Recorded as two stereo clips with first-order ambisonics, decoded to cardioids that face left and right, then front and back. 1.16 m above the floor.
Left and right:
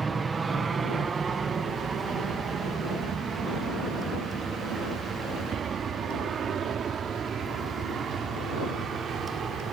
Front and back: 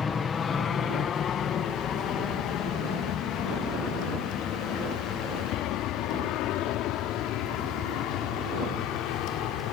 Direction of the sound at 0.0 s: 40° right.